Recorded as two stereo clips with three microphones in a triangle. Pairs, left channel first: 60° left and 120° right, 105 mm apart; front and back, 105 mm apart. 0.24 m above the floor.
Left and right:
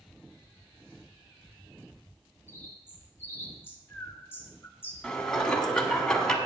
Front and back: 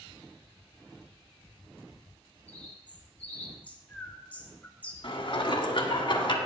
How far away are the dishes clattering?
About 1.2 m.